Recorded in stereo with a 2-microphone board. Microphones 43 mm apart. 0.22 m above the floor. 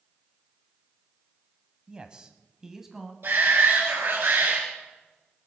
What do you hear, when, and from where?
1.9 s a man speaking: 20° right (ahead or behind), 1.4 m; by 3.1 s 5° right (ahead or behind), 1.7 m
3.2 s a shout: 65° right (ahead or behind), 2.5 m